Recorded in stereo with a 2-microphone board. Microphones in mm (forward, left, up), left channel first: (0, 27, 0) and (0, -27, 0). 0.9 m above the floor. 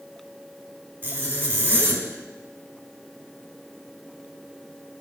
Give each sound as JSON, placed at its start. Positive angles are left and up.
{"t": 1.0, "sound": "a zipper", "side_deg": -45, "distance_m": 1.4}